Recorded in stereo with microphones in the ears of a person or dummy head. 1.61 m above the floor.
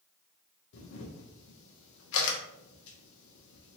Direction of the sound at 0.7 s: 70° left (ahead or behind).